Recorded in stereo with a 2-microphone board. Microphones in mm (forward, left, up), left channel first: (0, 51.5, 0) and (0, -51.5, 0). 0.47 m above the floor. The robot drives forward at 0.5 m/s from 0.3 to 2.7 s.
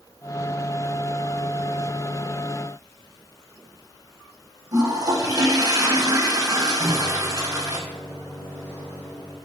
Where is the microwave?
20° left (ahead or behind), 1.7 m.